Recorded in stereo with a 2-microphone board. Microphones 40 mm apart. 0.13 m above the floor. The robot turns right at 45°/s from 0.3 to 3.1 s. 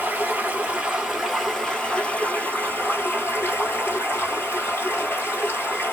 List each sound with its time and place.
0.0 s running water: 45° right, 1.3 m; by 5.9 s 80° left, 1.3 m